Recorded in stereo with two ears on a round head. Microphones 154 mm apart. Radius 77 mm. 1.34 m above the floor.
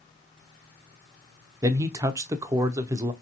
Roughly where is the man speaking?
Centre.